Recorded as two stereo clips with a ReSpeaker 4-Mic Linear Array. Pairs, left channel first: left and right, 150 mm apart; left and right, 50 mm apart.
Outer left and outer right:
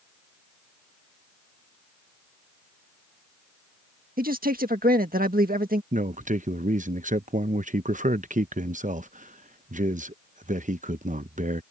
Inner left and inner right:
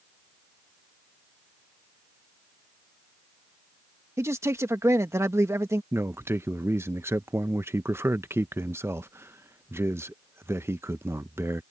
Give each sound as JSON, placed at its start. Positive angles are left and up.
{"t": 4.2, "sound": "a man speaking", "side_deg": -75}
{"t": 5.9, "sound": "a man speaking", "side_deg": -60}